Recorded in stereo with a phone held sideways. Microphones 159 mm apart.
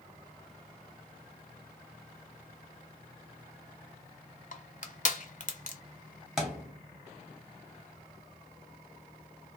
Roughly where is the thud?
Centre.